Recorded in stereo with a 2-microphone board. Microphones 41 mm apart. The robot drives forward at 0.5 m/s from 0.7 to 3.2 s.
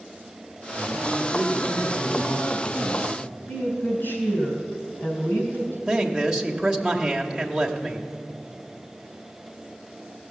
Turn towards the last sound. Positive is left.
turn(degrees=-15)  # may be behind; listen again after turning